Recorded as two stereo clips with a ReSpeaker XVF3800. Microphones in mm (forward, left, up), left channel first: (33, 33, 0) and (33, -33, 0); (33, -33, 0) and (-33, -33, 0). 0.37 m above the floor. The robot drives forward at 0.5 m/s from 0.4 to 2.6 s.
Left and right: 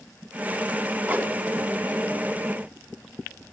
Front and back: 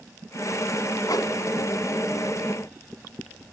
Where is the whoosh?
25° right, 1.3 m.